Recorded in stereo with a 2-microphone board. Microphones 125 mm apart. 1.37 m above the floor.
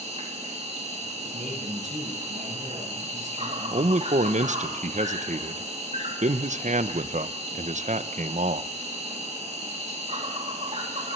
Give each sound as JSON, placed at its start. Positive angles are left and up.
{"t": 0.0, "sound": "an insect", "side_deg": -60, "distance_m": 3.0}
{"t": 1.2, "sound": "a man speaking", "side_deg": -80, "distance_m": 6.5}
{"t": 3.7, "sound": "a man speaking", "side_deg": -70, "distance_m": 0.7}